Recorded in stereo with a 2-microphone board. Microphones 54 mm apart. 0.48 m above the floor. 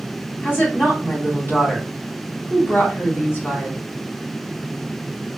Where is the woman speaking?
45° left (ahead or behind), 2.5 m.